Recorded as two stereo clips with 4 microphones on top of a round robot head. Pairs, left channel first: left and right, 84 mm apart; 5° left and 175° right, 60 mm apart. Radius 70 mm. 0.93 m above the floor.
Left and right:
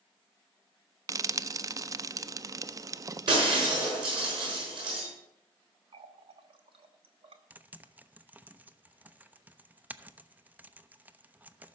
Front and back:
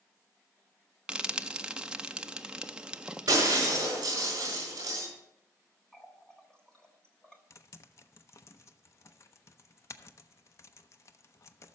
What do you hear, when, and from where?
1.1 s frying: 110° right, 0.5 m
3.3 s breaking glass: 125° right, 6 m
5.9 s a running tap: 75° right, 1.1 m
7.5 s typing on a keyboard: 20° right, 0.7 m